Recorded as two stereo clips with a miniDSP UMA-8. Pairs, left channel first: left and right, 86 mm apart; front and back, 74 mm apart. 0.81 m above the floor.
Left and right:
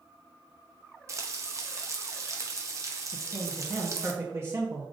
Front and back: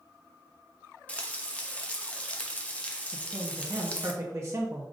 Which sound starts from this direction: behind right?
A man speaking, at 3.1 s.